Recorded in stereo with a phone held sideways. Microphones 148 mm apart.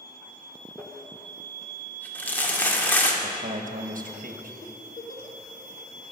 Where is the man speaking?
70° right (ahead or behind), 1.1 m.